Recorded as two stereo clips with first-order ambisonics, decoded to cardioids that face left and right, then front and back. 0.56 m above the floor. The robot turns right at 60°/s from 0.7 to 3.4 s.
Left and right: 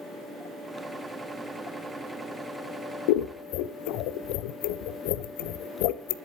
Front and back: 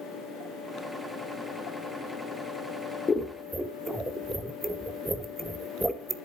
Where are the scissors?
75° left, 0.7 m; by 6.2 s 95° left, 0.7 m.